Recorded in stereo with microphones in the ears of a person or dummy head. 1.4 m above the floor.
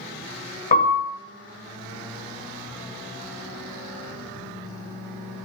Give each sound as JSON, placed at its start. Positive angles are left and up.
{"t": 0.7, "sound": "a piano", "side_deg": 40, "distance_m": 0.8}